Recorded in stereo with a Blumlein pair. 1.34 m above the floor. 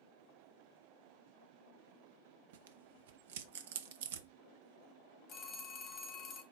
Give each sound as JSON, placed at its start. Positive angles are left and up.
{"t": 2.5, "sound": "tearing paper", "azimuth_deg": -55, "distance_m": 0.5}
{"t": 5.3, "sound": "a phone ringing", "azimuth_deg": 30, "distance_m": 1.0}